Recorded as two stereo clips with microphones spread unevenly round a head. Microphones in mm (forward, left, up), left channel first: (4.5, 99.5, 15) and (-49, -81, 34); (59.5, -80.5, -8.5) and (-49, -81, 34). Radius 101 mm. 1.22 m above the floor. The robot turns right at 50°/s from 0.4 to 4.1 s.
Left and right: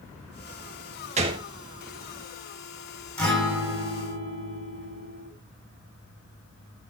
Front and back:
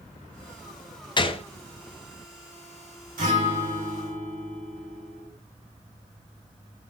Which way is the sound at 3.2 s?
155° left.